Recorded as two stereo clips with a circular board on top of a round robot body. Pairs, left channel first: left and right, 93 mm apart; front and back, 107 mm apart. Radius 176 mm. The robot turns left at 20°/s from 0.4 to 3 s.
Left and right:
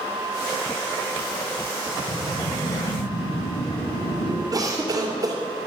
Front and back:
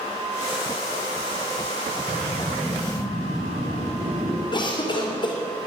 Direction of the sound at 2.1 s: 130° left.